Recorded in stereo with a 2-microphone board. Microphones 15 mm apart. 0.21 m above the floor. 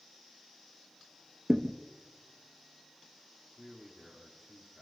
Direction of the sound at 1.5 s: 30° right (ahead or behind).